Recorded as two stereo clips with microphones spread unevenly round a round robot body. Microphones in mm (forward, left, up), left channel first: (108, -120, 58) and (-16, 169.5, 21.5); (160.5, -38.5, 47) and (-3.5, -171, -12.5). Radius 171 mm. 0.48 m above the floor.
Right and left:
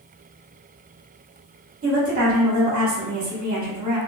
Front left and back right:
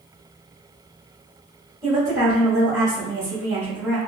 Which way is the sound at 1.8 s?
160° left.